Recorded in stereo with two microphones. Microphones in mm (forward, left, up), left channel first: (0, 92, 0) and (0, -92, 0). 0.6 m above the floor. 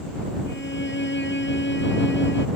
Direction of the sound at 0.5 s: 75° left (ahead or behind).